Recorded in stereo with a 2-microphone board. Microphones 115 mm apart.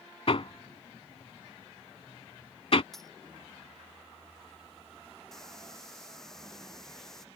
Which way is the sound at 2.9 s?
Centre (ahead or behind).